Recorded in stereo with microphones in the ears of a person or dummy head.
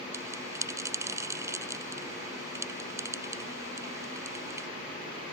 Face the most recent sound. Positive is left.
turn(degrees=-15)  # may be behind; listen again after turning